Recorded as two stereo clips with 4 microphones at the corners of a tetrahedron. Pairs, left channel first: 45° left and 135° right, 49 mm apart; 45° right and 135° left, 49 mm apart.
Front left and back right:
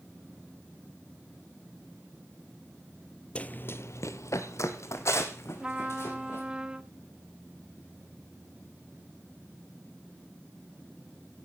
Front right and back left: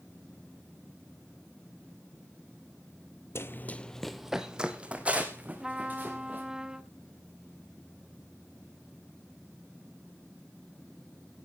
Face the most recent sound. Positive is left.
turn(degrees=-175)